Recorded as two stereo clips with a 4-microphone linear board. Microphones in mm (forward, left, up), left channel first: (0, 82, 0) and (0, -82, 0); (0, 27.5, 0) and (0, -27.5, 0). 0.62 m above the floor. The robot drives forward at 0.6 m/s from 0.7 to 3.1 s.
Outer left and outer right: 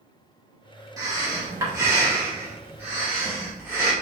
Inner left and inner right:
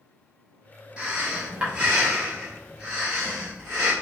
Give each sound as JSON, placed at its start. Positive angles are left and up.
{"t": 1.0, "sound": "breathing", "side_deg": -20, "distance_m": 1.3}